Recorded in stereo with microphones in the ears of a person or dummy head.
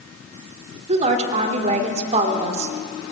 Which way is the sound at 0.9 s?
40° right (ahead or behind).